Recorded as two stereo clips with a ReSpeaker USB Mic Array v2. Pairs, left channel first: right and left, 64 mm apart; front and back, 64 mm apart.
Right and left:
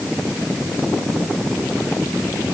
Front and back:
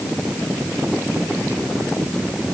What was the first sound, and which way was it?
Only background noise.